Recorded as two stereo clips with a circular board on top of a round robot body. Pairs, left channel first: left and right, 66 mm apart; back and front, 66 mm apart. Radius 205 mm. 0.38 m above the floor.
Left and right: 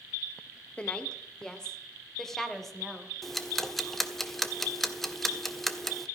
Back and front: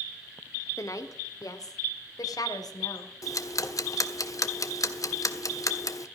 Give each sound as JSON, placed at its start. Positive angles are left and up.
{"t": 0.8, "sound": "a woman speaking", "azimuth_deg": 160, "distance_m": 1.7}
{"t": 3.2, "sound": "ticking", "azimuth_deg": 175, "distance_m": 1.6}